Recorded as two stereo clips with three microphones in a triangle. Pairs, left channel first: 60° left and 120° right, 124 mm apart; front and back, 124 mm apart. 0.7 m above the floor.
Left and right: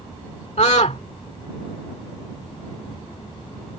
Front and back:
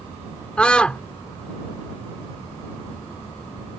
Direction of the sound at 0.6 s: 80° left.